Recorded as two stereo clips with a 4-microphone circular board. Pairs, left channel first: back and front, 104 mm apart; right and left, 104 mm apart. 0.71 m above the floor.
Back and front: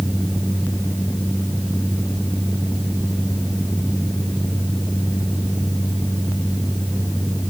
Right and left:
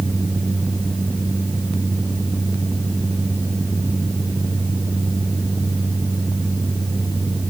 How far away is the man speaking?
No man speaking in this recording.